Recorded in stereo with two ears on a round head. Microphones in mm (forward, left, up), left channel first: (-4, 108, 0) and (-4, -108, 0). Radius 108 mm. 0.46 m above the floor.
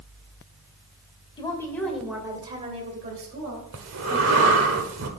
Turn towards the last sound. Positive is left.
turn(degrees=-55)  # may be behind; listen again after turning